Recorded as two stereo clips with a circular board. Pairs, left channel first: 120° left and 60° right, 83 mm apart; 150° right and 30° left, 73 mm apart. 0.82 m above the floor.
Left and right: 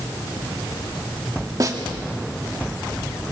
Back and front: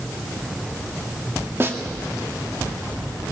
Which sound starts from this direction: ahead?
A snare drum, at 1.6 s.